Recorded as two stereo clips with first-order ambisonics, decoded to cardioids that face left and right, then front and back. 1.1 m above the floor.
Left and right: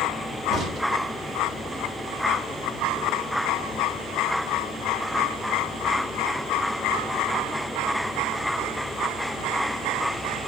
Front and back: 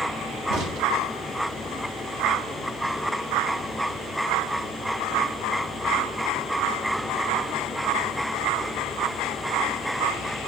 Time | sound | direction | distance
0.5 | a crack | 155° right | 1.0 m